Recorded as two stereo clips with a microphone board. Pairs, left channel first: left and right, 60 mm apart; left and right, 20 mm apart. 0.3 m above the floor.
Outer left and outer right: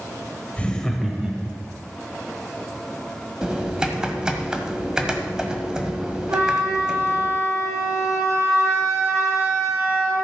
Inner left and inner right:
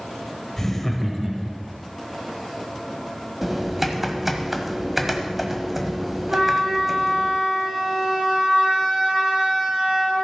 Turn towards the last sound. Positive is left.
turn(degrees=-65)  # may be behind; listen again after turning